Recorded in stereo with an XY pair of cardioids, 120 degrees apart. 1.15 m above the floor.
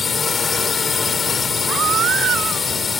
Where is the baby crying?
60° right.